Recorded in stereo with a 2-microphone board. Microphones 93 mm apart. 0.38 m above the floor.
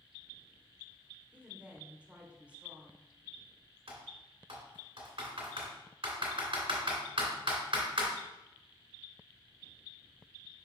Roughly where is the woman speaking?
Centre.